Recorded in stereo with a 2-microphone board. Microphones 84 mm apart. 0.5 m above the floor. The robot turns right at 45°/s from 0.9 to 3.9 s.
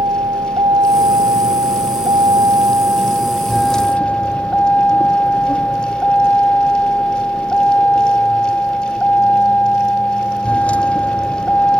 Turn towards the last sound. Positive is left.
turn(degrees=15)